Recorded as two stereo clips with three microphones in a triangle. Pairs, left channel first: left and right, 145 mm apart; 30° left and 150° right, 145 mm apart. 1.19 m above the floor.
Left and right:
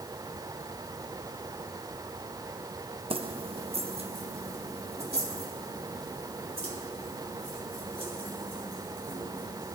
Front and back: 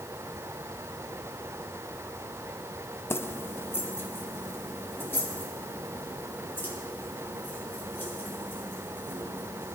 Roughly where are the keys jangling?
Ahead right.